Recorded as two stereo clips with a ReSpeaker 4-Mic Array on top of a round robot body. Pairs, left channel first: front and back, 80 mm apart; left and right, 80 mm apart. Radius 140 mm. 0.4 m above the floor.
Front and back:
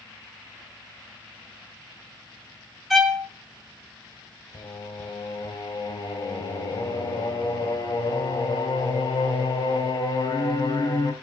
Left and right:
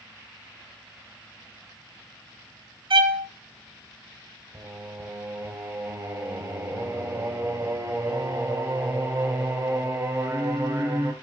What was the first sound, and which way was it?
A violin, 90° right.